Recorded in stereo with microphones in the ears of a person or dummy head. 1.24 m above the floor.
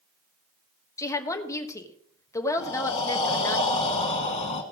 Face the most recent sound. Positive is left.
turn(degrees=30)  # may be behind; listen again after turning